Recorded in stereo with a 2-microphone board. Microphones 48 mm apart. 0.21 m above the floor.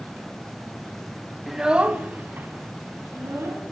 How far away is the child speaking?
About 0.6 m.